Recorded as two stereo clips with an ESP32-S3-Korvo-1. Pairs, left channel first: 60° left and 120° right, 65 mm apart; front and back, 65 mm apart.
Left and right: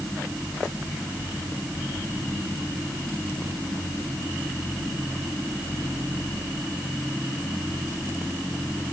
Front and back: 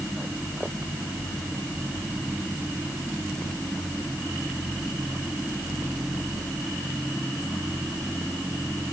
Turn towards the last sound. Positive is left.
No sound to turn to.